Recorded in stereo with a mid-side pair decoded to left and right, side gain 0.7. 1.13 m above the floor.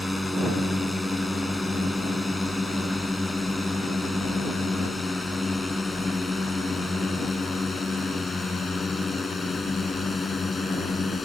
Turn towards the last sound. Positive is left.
turn(degrees=20)